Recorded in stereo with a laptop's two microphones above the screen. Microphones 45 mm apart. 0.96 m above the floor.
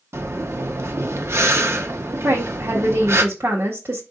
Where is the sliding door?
No sliding door in this recording.